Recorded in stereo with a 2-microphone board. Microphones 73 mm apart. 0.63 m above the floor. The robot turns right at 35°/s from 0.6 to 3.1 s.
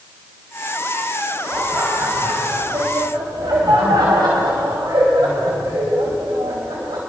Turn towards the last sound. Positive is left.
turn(degrees=-100)